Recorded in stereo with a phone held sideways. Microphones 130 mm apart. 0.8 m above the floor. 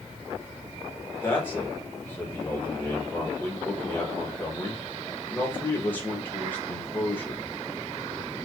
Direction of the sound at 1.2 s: 15° left (ahead or behind).